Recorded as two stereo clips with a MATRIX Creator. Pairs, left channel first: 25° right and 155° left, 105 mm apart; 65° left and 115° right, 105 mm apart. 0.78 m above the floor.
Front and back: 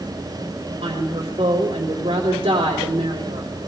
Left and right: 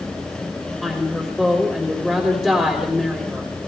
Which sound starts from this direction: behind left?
A woman speaking, at 0.8 s.